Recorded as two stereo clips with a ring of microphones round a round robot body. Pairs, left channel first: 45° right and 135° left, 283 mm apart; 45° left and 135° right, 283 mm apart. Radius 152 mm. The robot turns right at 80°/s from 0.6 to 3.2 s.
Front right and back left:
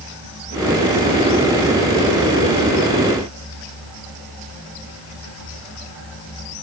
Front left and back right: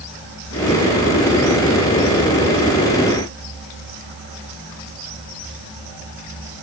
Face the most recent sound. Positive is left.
No sound to turn to.